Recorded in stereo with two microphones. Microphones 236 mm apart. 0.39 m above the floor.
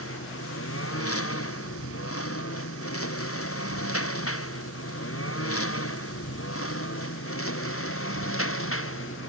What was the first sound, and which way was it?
A lawn mower, 85° left.